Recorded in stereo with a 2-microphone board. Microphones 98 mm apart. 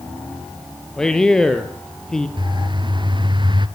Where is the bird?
50° right (ahead or behind), 1.0 m.